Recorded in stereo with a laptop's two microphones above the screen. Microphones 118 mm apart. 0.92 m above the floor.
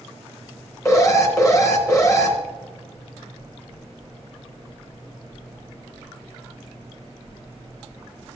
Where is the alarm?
25° left (ahead or behind), 1.0 m.